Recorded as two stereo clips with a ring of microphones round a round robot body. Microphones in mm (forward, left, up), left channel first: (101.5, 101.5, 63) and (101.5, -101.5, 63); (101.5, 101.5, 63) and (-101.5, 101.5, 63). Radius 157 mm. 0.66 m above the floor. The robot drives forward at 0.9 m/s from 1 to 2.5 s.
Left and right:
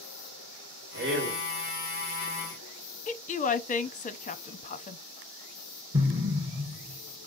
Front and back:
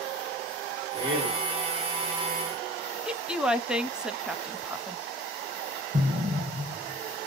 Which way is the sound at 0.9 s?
105° right.